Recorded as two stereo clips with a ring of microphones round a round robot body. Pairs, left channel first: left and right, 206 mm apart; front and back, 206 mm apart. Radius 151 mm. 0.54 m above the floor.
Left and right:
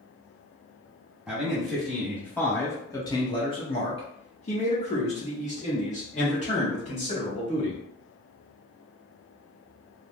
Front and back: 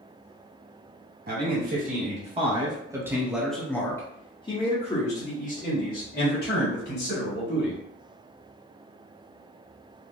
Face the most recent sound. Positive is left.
turn(degrees=35)